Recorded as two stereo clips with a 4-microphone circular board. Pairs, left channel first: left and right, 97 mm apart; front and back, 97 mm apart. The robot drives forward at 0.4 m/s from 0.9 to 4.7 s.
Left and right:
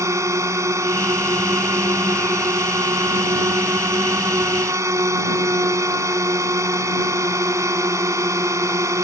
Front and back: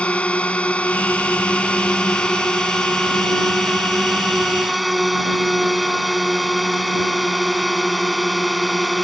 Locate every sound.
0.0 s a drone: 70° right; by 9.0 s 90° right